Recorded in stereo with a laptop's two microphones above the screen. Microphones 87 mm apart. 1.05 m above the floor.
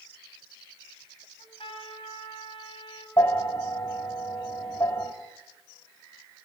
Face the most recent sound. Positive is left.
turn(degrees=40)  # may be behind; listen again after turning